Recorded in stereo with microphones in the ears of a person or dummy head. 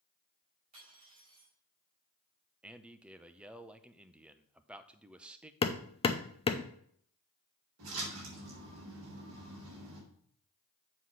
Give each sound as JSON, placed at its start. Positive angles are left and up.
{"t": 0.7, "sound": "cutlery clinking", "side_deg": -45, "distance_m": 4.5}
{"t": 2.6, "sound": "a man speaking", "side_deg": 0, "distance_m": 0.6}
{"t": 5.6, "sound": "hammering", "side_deg": 25, "distance_m": 0.6}
{"t": 7.8, "sound": "a splash", "side_deg": -80, "distance_m": 3.5}